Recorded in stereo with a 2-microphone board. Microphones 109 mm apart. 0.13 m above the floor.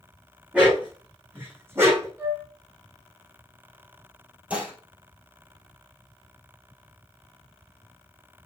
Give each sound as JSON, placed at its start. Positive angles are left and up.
{"t": 0.5, "sound": "a dog barking", "side_deg": -10, "distance_m": 4.0}
{"t": 2.2, "sound": "a flute", "side_deg": -25, "distance_m": 5.0}
{"t": 4.5, "sound": "dishes clattering", "side_deg": -10, "distance_m": 2.5}